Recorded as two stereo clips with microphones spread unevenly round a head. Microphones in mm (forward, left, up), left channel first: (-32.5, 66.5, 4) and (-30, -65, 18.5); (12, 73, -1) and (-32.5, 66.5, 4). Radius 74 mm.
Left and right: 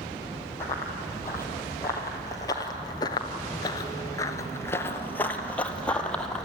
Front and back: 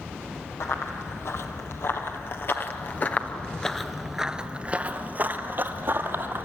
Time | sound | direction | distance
0.6 | running footsteps | 15° left | 2.5 m